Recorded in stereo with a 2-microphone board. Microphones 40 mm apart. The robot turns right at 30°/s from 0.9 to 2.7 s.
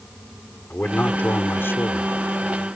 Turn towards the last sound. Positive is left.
turn(degrees=100)